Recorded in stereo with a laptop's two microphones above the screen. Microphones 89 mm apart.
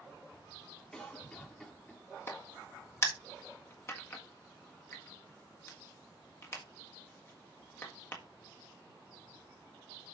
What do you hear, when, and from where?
0.9 s a cough: 10° left (ahead or behind), 2.5 m
2.3 s a crack: 30° left (ahead or behind), 1.5 m